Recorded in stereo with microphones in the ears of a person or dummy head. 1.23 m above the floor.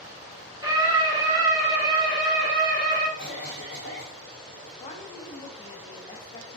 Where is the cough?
5° left (ahead or behind), 1.6 m.